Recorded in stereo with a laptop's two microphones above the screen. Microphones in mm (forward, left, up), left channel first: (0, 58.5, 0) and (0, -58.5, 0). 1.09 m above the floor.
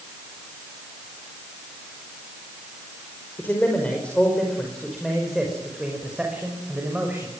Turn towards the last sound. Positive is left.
turn(degrees=-15)  # may be behind; listen again after turning